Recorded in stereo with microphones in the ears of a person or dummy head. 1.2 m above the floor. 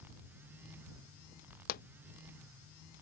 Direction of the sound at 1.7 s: 50° left (ahead or behind).